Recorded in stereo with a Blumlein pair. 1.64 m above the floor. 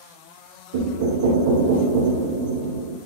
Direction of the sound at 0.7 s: 55° right.